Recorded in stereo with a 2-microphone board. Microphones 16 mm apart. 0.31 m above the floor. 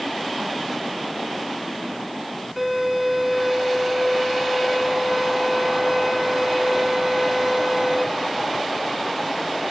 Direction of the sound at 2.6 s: 15° right (ahead or behind).